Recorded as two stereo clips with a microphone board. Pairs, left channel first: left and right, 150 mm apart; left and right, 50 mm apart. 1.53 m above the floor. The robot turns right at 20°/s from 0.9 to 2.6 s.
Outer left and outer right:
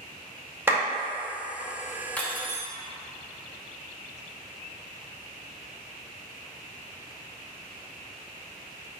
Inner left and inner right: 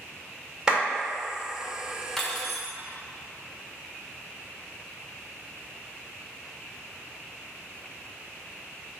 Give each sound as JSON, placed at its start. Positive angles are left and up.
{"t": 0.7, "sound": "a clap", "side_deg": -15, "distance_m": 2.0}
{"t": 2.2, "sound": "cutlery clinking", "side_deg": 10, "distance_m": 1.1}